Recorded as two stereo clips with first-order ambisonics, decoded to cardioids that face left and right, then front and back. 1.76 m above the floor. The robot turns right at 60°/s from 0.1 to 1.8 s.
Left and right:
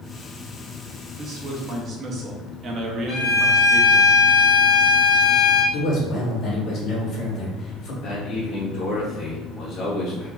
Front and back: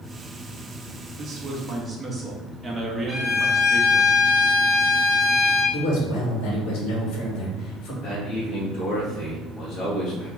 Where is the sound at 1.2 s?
140° right, 0.7 m; by 4.1 s 105° right, 0.7 m.